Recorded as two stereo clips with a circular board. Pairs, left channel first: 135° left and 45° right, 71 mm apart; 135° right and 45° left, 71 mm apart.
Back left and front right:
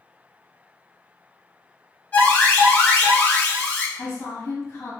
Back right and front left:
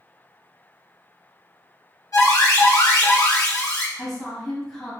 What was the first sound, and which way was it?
An alarm, 165° right.